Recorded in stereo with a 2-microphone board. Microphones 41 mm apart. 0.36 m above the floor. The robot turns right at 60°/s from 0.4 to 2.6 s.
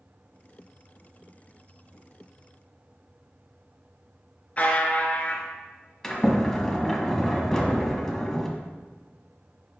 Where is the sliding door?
10° left (ahead or behind), 1.5 m.